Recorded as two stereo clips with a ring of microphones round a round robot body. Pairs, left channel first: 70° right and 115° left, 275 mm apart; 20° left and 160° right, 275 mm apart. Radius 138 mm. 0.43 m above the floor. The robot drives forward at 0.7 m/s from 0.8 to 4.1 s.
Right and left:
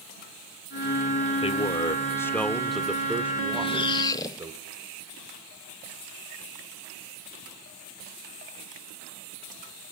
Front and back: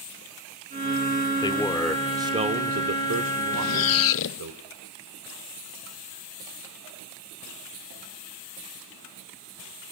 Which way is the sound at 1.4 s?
30° right.